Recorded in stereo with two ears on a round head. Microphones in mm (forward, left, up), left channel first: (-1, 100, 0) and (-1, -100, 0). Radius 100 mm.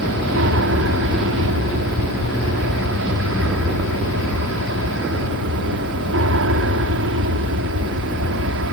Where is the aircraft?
60° right (ahead or behind).